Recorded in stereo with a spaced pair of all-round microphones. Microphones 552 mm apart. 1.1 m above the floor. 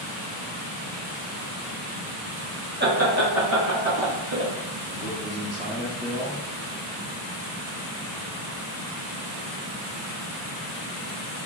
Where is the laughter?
20° right (ahead or behind), 0.6 m; by 4.5 s 35° right (ahead or behind), 2 m.